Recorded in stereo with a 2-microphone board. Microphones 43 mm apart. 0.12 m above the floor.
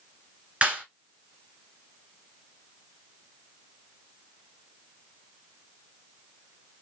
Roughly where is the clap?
Right.